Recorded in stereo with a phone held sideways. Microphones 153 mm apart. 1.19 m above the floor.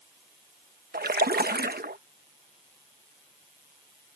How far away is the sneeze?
I don't hear a sneeze.